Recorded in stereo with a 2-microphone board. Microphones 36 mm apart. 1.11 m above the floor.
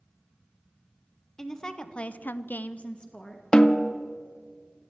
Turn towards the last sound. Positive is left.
turn(degrees=30)  # may be behind; listen again after turning